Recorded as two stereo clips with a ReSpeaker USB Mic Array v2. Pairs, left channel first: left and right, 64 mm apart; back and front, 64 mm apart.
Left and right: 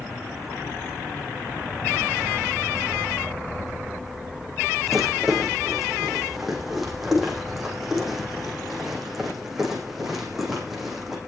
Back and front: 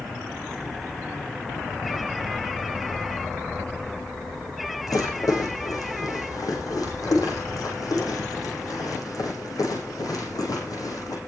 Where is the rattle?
175° right, 6 m.